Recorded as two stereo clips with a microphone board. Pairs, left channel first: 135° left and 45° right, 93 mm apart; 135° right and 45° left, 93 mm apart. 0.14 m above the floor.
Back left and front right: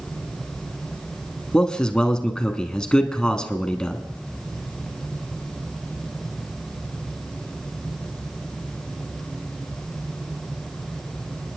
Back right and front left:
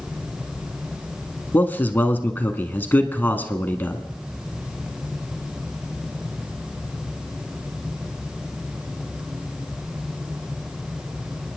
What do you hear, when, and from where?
1.5 s a man speaking: 160° right, 1.1 m